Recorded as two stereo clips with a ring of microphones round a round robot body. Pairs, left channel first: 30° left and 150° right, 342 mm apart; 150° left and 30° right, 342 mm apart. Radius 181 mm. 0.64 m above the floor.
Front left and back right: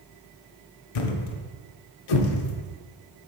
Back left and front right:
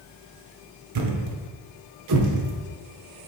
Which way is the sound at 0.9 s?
10° left.